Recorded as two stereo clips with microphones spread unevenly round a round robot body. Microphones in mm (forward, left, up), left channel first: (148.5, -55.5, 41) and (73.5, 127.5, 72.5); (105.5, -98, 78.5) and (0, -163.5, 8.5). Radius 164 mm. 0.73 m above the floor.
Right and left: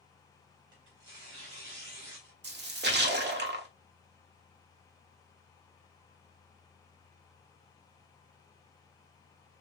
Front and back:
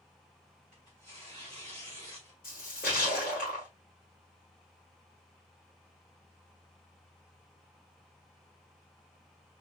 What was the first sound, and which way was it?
Tearing paper, 105° left.